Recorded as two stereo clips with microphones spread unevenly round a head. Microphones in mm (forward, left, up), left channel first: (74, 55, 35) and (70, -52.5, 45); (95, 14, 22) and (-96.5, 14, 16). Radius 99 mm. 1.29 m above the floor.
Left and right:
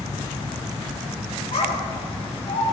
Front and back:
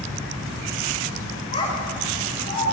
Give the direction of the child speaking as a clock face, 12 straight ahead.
10 o'clock.